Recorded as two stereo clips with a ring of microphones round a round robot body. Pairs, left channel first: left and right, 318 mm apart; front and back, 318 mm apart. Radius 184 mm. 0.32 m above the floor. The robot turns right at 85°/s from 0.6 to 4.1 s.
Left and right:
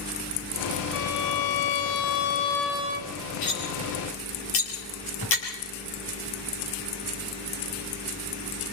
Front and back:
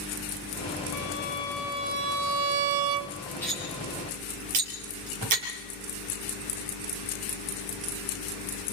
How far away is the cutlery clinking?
About 5 m.